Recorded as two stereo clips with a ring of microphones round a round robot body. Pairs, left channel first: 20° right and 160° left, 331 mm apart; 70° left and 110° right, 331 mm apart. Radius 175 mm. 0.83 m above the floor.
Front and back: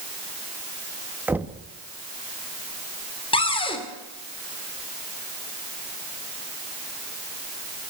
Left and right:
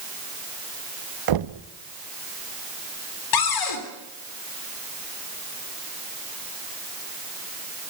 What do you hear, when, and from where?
1.3 s knocking: 120° right, 0.9 m
3.3 s a cupboard door: 50° left, 3 m